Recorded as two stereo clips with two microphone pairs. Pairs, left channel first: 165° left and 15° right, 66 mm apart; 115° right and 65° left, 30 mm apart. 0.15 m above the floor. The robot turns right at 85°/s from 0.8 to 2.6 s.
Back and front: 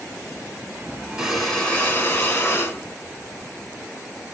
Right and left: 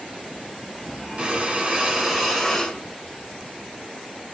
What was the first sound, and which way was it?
Breathing, 55° left.